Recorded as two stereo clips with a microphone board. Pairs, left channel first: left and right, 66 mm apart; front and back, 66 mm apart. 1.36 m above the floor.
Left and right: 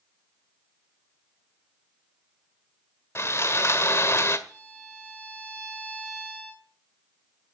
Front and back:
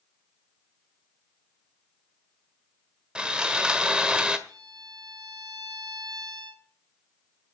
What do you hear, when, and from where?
3.1 s sawing: 110° left, 1.4 m
4.5 s a violin: 155° right, 6 m